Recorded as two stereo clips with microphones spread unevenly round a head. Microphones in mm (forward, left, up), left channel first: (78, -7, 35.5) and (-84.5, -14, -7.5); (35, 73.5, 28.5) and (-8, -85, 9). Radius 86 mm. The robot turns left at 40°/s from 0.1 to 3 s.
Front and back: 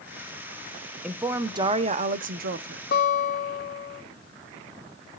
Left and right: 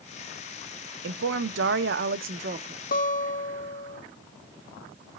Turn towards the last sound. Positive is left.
turn(degrees=30)